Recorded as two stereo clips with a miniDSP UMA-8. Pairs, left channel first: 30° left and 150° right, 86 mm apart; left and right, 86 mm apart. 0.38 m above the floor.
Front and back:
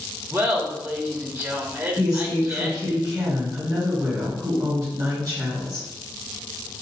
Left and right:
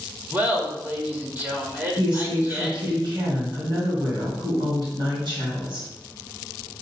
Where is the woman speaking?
120° right, 2.5 m.